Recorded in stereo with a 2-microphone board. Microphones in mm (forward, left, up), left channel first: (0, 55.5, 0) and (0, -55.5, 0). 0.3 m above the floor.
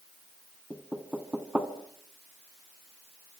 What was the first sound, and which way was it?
Knocking, 15° right (ahead or behind).